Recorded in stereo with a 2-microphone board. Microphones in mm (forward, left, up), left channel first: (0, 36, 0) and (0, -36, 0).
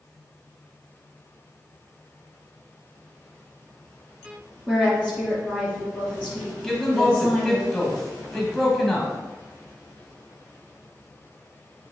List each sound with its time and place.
4.7 s a woman speaking: centre (ahead or behind), 2.5 m
6.6 s a man speaking: 5° left (ahead or behind), 1.6 m